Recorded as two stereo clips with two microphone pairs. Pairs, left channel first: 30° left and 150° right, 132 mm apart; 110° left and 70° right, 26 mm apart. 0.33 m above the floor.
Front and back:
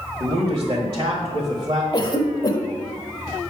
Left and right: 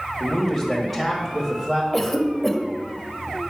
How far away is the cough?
About 1.0 m.